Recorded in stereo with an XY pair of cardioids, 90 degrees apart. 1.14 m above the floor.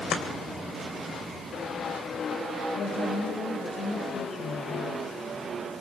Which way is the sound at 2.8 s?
70° left.